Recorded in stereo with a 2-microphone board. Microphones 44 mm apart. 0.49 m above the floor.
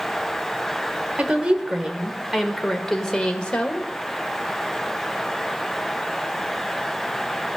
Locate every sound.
1.2 s a woman speaking: 30° right (ahead or behind), 1.4 m; by 3.9 s 30° left (ahead or behind), 1.5 m